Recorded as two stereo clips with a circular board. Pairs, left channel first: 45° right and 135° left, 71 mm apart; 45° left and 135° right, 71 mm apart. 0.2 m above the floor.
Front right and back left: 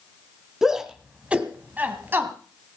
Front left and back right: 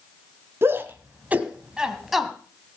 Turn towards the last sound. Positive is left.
turn(degrees=135)